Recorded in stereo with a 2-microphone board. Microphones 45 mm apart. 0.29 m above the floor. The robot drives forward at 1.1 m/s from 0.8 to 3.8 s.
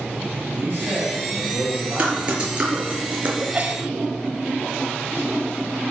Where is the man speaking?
35° right (ahead or behind), 6.5 m; by 3.0 s 55° right (ahead or behind), 5 m.